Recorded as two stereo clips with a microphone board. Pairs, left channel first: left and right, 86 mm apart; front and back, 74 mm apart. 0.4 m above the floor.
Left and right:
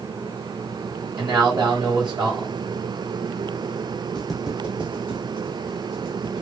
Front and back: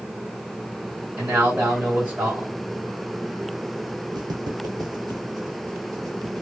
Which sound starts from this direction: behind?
Footsteps, at 4.2 s.